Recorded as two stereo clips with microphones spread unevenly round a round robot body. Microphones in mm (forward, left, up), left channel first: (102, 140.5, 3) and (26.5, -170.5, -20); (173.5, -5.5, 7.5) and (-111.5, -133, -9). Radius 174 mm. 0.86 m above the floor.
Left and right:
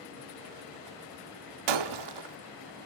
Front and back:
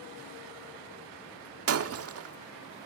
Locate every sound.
1.7 s breaking glass: 110° right, 1.1 m